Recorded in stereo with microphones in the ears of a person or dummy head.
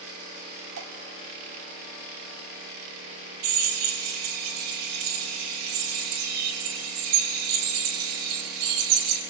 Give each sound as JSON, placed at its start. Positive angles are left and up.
{"t": 0.8, "sound": "dripping", "side_deg": -75, "distance_m": 3.0}
{"t": 3.4, "sound": "a drill", "side_deg": -80, "distance_m": 4.5}